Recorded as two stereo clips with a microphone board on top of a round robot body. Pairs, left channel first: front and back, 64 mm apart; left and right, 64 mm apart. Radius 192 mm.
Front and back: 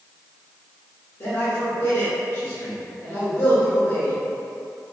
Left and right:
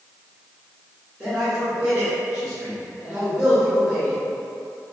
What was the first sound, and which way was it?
A man speaking, 15° right.